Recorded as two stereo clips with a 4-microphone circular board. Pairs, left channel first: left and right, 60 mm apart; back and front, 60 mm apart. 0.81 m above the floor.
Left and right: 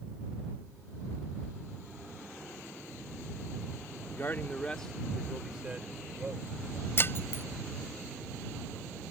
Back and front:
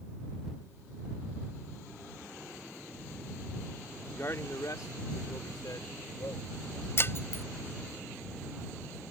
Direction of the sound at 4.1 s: 130° left.